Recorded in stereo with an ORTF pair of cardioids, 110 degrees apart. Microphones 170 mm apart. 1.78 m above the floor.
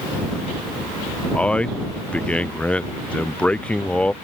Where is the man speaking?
10° left.